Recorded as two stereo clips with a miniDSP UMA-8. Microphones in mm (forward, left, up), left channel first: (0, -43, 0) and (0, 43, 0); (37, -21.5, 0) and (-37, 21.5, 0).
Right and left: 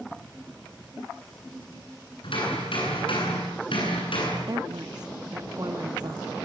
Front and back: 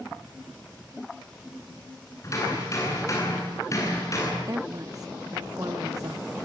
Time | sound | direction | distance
2.2 | hammering | 80° right | 10 m
4.4 | a woman speaking | 115° left | 1.3 m